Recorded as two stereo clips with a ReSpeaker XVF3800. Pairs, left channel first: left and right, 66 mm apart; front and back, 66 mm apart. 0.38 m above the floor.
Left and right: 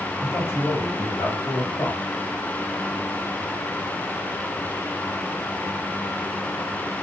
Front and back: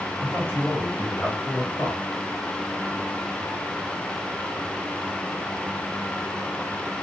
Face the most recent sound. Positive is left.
turn(degrees=65)